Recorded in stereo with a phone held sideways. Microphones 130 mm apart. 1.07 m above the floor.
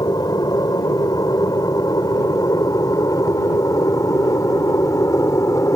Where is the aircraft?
30° left (ahead or behind); by 5.8 s 25° left (ahead or behind).